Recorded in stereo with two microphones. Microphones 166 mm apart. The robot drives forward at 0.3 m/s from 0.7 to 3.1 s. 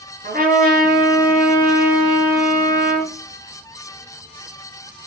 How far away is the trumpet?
About 4 m.